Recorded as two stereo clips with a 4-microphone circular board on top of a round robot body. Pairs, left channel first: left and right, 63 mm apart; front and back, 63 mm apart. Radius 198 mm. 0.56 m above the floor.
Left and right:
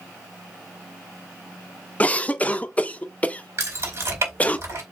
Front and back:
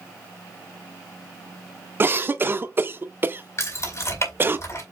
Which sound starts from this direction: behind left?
A cough, at 2.0 s.